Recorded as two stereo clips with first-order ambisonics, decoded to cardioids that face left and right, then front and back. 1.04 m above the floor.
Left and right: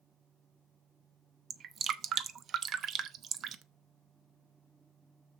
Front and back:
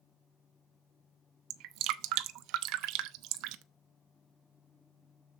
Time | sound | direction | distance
1.5 | dripping | 150° right | 0.7 m